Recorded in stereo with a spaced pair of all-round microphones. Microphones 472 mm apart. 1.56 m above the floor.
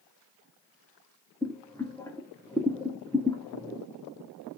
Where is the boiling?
5° left (ahead or behind), 0.6 m.